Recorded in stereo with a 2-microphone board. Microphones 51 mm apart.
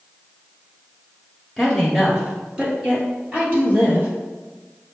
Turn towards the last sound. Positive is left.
turn(degrees=-35)  # may be behind; listen again after turning